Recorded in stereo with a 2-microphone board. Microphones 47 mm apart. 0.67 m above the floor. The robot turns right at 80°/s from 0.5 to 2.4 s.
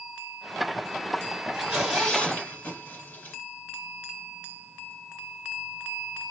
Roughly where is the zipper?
Right.